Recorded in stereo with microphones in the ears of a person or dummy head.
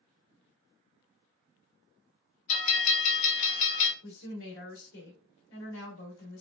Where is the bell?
35° left (ahead or behind), 0.8 m.